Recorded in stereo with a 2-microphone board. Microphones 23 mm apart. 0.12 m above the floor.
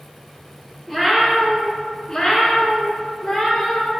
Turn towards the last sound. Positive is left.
turn(degrees=40)  # may be behind; listen again after turning